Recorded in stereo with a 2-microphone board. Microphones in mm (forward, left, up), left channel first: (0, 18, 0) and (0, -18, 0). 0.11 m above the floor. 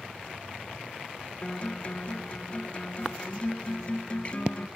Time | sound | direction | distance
1.4 | a guitar | 30° left (ahead or behind) | 0.6 m